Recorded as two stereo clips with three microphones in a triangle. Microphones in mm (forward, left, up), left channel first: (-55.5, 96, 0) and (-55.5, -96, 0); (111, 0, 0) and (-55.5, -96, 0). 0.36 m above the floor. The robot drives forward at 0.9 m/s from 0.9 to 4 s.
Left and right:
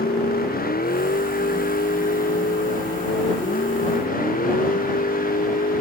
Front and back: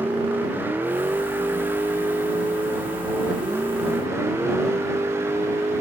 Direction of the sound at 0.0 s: 130° left.